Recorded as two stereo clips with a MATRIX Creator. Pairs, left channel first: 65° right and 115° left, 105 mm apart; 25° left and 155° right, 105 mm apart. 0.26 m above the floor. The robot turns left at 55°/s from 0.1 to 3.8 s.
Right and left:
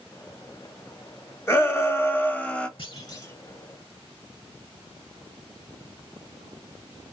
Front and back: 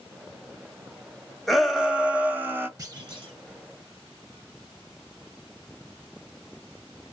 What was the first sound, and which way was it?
A shout, 65° right.